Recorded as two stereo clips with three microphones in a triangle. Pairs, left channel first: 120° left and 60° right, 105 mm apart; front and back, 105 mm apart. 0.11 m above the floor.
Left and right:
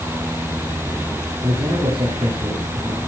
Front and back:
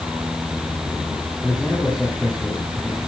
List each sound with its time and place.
1.4 s a man speaking: 90° right, 6 m